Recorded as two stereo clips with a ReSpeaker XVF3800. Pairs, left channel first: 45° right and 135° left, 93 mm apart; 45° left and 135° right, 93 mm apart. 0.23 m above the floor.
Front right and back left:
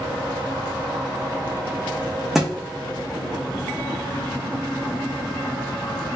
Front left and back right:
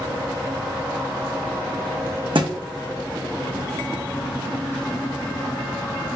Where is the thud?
140° right, 0.6 m.